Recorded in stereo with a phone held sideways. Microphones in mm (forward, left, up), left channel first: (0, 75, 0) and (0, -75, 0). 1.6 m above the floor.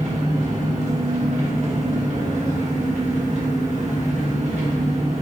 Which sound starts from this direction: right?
An engine running, at 0.0 s.